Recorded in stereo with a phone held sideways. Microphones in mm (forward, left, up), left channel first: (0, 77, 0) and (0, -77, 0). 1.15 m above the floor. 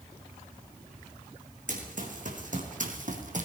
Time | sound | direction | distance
1.7 | running footsteps | 60° right (ahead or behind) | 3.5 m